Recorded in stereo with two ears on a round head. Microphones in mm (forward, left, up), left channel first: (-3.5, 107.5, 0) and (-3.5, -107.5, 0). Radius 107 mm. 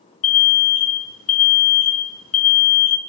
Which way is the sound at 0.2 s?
55° left (ahead or behind).